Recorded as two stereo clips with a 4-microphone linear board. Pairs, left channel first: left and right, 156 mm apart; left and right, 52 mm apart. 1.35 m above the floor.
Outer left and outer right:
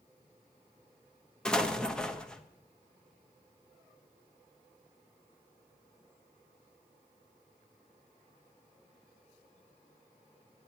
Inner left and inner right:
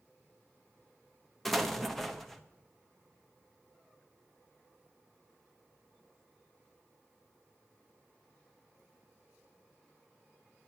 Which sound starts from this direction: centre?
An explosion, at 1.4 s.